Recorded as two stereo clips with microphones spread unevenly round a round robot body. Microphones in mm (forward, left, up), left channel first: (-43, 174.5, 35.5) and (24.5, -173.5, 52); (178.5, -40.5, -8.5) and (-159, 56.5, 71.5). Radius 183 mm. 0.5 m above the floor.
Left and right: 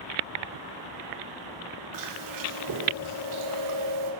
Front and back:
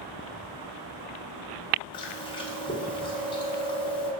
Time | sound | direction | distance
1.9 | chewing | 80° right | 2.0 m